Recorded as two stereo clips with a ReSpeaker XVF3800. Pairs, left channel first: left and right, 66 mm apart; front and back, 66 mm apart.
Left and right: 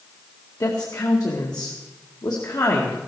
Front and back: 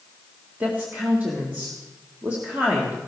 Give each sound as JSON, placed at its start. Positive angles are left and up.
{"t": 0.6, "sound": "a woman speaking", "azimuth_deg": 115, "distance_m": 1.9}